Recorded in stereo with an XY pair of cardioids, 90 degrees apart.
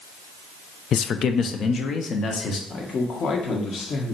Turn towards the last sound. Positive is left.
turn(degrees=60)